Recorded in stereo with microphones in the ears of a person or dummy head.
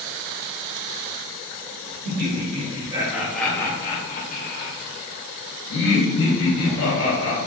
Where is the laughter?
40° right (ahead or behind), 1.1 m; by 7.4 s 70° left (ahead or behind), 2.5 m.